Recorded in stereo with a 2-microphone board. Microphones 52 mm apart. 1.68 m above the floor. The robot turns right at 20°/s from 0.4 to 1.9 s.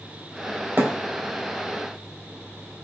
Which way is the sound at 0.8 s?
45° right (ahead or behind).